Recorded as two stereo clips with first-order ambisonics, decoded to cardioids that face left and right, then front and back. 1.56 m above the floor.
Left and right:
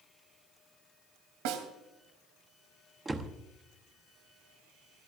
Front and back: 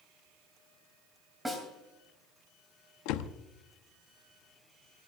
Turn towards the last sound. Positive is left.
turn(degrees=-10)